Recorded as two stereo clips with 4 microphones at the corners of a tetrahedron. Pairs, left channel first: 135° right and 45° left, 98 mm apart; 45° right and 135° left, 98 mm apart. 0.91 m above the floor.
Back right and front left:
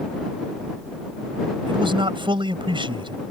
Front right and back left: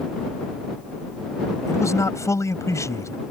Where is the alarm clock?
No alarm clock in this recording.